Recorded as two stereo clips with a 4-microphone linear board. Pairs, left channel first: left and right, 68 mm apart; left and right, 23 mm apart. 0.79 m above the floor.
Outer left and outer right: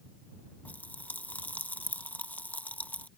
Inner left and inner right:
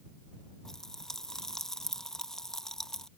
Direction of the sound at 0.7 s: 25° left (ahead or behind).